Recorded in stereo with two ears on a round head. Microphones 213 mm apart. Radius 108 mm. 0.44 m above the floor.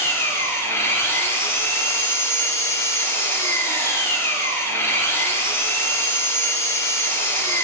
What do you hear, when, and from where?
0.0 s an engine running: 10° left (ahead or behind), 3 m